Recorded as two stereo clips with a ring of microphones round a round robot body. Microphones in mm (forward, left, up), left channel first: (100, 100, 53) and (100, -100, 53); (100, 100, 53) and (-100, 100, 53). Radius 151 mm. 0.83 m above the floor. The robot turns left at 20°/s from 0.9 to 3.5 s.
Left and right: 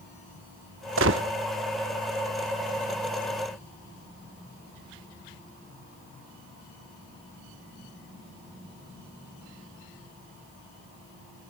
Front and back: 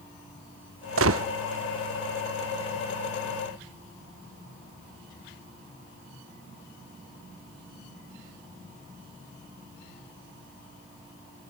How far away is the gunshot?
About 0.8 m.